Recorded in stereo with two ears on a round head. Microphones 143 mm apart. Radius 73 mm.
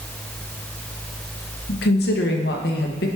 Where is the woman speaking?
75° left (ahead or behind), 1.1 m.